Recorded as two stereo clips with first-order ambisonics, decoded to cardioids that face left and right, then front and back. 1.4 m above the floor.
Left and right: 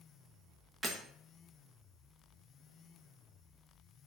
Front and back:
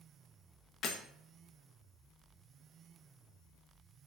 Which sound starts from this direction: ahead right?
Breaking glass, at 0.8 s.